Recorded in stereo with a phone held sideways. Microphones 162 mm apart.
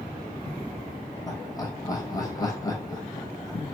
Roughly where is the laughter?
Left.